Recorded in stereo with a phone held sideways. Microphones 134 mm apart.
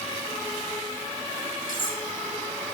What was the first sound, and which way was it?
Cutlery clinking, 80° left.